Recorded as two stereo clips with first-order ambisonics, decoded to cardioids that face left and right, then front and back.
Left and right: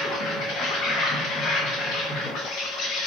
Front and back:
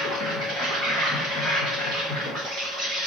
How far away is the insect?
About 2.5 m.